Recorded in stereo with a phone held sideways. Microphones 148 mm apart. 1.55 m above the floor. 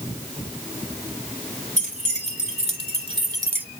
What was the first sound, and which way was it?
Keys jangling, 55° right (ahead or behind).